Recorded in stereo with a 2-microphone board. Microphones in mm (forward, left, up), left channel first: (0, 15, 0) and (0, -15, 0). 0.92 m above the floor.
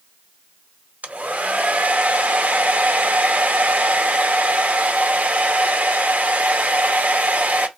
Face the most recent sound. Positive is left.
turn(degrees=-60)  # may be behind; listen again after turning